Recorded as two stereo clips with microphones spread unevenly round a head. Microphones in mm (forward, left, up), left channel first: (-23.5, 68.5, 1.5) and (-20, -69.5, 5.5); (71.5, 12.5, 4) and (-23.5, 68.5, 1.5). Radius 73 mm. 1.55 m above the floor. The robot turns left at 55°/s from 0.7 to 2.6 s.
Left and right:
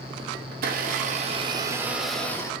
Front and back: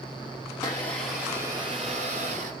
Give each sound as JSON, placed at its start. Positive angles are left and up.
{"t": 0.5, "sound": "a blender", "azimuth_deg": -100, "distance_m": 0.6}